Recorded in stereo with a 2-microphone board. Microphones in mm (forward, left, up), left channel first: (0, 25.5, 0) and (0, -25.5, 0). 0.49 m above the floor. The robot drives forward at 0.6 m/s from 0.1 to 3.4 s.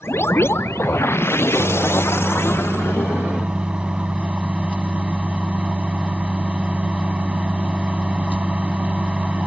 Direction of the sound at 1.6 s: 15° right (ahead or behind).